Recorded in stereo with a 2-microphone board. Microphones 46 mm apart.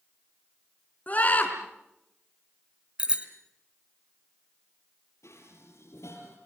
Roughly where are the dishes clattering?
Left.